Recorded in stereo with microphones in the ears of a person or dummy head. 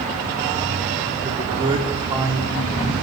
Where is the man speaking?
40° right (ahead or behind), 4.5 m; by 2.9 s 20° right (ahead or behind), 5.5 m.